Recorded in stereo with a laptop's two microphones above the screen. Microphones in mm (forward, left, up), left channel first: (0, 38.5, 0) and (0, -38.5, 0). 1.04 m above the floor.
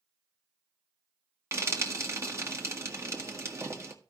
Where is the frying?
40° right (ahead or behind), 1.7 m.